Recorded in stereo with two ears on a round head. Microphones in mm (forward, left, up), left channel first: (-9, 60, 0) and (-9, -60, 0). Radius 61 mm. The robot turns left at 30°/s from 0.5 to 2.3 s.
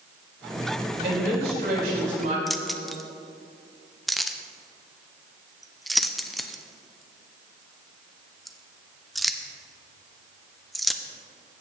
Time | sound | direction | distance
1.0 | a woman speaking | 85° right | 3.5 m
2.5 | keys jangling | centre (ahead or behind) | 0.5 m